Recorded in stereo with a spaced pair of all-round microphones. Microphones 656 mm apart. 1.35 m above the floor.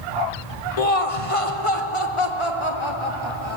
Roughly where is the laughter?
Left.